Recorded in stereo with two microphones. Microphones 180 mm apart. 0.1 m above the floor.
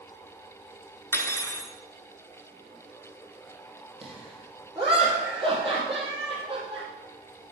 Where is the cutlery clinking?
15° left (ahead or behind), 0.7 m.